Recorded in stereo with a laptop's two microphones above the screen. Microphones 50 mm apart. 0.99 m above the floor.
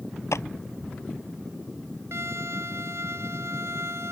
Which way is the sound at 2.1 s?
65° right (ahead or behind).